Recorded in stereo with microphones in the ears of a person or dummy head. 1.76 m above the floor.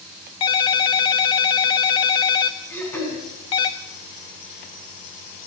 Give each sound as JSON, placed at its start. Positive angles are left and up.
{"t": 0.4, "sound": "a ringtone", "side_deg": 25, "distance_m": 1.0}
{"t": 2.7, "sound": "throat clearing", "side_deg": 10, "distance_m": 5.0}